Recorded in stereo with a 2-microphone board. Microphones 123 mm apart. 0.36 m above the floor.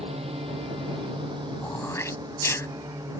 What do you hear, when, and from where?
0.0 s a drone: 55° right (ahead or behind); by 3.2 s 30° right (ahead or behind)
1.6 s throat clearing: 25° left (ahead or behind)